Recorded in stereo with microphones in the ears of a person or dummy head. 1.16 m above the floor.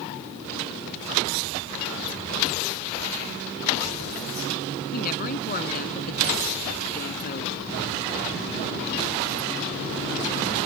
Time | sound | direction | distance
4.9 | a woman speaking | 50° left (ahead or behind) | ?